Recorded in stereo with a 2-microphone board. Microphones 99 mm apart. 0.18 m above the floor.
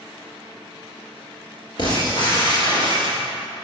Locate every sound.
1.8 s breaking glass: 45° left (ahead or behind), 1.7 m